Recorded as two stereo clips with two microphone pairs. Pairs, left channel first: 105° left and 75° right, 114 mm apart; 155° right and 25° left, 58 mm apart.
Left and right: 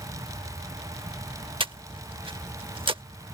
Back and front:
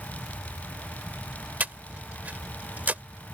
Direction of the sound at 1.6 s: 35° right.